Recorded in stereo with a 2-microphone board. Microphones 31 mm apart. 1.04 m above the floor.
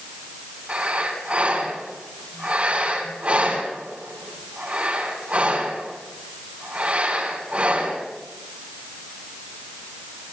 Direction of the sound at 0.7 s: 45° right (ahead or behind).